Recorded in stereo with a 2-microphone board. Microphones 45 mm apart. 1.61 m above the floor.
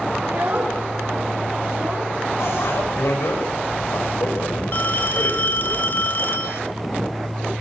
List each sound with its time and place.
0.2 s a child speaking: 55° right (ahead or behind), 6 m
2.4 s a bicycle bell: 80° left, 5.5 m
4.7 s a phone ringing: 45° left (ahead or behind), 1.4 m